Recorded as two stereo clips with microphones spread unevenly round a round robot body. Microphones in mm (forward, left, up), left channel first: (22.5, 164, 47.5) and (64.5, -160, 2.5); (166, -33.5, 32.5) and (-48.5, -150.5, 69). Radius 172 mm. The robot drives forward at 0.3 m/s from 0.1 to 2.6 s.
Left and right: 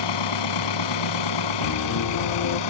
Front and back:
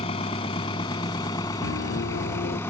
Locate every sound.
0.0 s an engine running: 105° left; by 2.7 s 110° left
1.6 s a piano: 60° left; by 2.6 s 85° left